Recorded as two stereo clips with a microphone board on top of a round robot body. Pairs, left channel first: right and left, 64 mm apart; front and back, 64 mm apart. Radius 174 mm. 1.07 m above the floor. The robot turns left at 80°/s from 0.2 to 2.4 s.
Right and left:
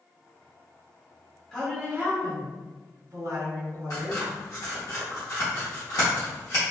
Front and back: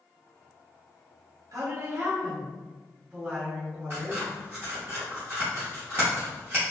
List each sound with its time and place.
1.5 s a woman speaking: 170° right, 1.7 m; by 4.9 s 115° left, 1.7 m
3.9 s scissors: 125° right, 0.6 m